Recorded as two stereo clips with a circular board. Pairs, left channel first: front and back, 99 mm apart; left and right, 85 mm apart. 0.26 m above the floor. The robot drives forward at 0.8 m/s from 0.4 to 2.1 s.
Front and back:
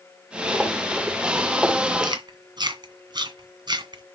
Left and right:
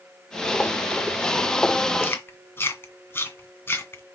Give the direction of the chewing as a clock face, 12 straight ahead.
7 o'clock.